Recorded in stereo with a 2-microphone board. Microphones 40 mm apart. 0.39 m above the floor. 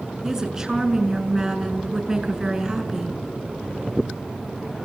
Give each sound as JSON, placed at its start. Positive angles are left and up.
{"t": 0.2, "sound": "a woman speaking", "side_deg": -15, "distance_m": 5.5}